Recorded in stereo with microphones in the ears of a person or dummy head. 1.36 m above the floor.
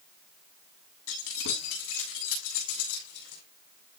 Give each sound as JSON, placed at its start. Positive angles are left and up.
{"t": 1.1, "sound": "keys jangling", "side_deg": 85, "distance_m": 8.0}